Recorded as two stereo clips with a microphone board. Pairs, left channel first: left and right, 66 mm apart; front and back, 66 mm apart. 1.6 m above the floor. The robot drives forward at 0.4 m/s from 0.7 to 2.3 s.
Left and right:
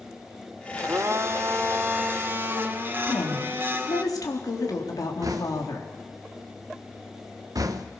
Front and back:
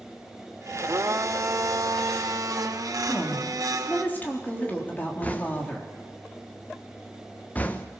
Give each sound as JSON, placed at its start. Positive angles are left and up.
{"t": 0.8, "sound": "a blender", "azimuth_deg": -130, "distance_m": 1.2}
{"t": 3.0, "sound": "a woman speaking", "azimuth_deg": 65, "distance_m": 3.5}
{"t": 5.2, "sound": "knocking", "azimuth_deg": -65, "distance_m": 1.1}